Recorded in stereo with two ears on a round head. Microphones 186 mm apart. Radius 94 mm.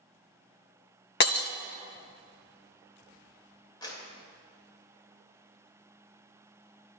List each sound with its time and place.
1.2 s breaking glass: 50° left (ahead or behind), 0.7 m
3.8 s a clap: 20° left (ahead or behind), 2.5 m